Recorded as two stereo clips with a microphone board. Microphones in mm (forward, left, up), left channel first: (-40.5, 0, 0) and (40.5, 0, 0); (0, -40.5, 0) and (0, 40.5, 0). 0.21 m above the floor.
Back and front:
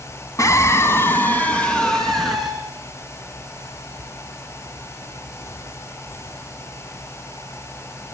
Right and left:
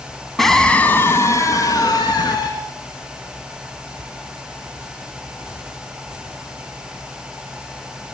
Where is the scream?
175° right, 1.9 m; by 2.5 s 90° right, 3 m.